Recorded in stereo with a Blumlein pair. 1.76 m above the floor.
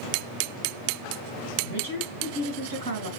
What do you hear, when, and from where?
1.6 s a woman speaking: 70° right, 3 m